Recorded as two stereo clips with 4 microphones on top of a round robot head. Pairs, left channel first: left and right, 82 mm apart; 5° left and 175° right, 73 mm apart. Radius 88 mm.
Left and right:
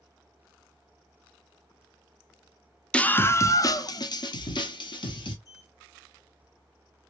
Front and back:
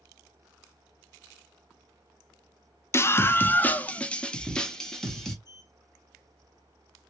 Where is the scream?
20° left, 0.6 m; by 5.3 s 90° left, 1.6 m.